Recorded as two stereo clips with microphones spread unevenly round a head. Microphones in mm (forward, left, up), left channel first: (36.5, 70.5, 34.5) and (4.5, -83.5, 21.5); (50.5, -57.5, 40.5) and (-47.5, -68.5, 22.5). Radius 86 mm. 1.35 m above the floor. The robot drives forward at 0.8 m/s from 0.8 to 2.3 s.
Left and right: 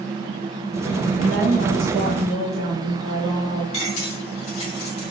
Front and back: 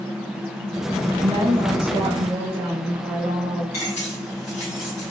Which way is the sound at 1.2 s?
125° right.